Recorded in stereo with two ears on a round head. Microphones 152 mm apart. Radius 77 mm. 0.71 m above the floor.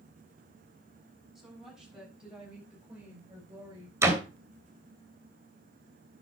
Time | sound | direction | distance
1.4 | a woman speaking | centre (ahead or behind) | 6.5 m
4.0 | a door slam | 15° right (ahead or behind) | 3 m